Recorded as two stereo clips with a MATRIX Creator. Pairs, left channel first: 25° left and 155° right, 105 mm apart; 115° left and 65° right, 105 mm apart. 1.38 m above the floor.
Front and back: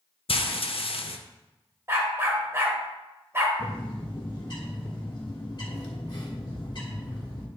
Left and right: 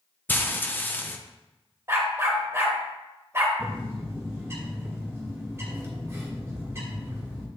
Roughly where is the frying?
Ahead left.